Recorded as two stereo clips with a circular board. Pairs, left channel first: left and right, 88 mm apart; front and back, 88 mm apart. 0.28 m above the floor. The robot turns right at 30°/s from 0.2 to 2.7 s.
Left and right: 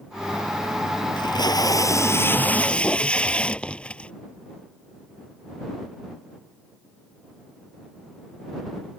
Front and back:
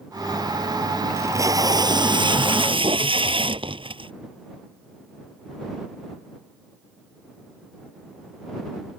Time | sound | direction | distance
1.2 | tape being pulled | 120° left | ?